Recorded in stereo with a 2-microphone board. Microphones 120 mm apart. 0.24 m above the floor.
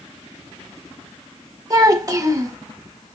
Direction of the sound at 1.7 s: 30° right (ahead or behind).